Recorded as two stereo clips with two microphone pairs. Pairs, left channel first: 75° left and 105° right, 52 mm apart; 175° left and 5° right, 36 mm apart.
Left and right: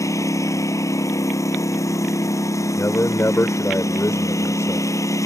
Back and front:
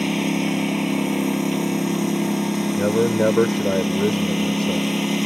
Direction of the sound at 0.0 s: 80° left.